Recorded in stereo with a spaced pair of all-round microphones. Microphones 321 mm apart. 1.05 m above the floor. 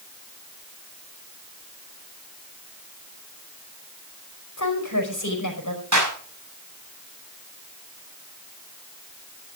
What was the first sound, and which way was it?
A woman speaking, 65° left (ahead or behind).